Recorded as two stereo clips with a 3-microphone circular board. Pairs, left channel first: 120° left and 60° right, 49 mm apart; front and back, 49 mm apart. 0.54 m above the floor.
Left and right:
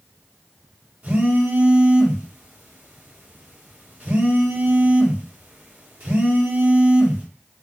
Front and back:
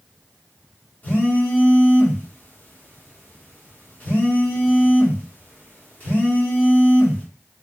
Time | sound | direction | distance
1.0 | a phone buzzing | 25° right | 1.2 m